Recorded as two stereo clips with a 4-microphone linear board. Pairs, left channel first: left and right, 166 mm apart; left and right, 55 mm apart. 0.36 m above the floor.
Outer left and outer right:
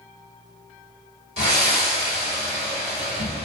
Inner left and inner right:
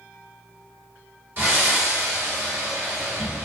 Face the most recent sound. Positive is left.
turn(degrees=-40)  # may be behind; listen again after turning